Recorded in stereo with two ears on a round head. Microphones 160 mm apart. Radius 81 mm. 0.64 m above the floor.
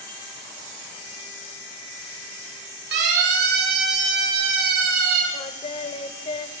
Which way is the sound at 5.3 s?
35° left (ahead or behind).